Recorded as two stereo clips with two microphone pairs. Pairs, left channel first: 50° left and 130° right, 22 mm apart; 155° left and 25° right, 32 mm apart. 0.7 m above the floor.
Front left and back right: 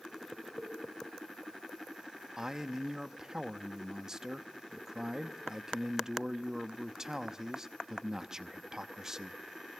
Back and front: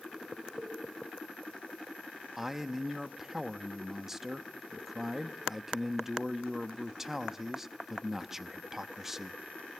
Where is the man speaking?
100° right, 0.7 m.